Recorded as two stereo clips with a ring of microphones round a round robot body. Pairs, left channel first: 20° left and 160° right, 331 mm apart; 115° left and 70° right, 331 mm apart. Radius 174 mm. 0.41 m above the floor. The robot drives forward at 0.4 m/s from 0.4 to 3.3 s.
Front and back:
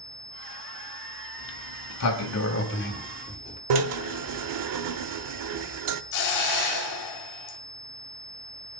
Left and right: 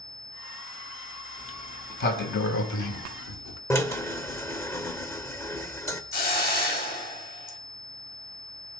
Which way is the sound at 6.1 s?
50° left.